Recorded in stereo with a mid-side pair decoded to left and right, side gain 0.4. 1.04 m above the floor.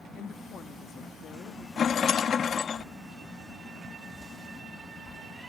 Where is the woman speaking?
65° left.